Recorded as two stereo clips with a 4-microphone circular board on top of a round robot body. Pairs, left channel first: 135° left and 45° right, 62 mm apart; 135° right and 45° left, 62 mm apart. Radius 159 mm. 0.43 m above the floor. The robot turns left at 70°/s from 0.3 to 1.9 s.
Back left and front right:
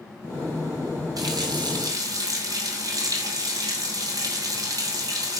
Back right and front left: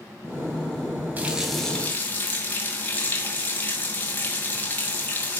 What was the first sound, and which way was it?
A running tap, 20° right.